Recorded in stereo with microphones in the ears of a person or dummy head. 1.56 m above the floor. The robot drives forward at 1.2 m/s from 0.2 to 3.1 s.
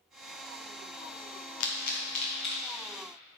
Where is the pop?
75° left (ahead or behind), 1.0 m; by 2.8 s 30° left (ahead or behind), 2.0 m.